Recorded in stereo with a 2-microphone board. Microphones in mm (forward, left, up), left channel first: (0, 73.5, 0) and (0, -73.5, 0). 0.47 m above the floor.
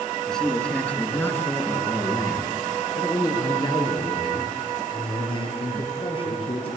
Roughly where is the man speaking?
Centre.